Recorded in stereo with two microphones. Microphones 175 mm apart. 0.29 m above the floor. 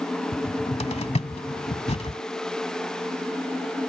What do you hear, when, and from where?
0.3 s a cupboard door: 40° left (ahead or behind)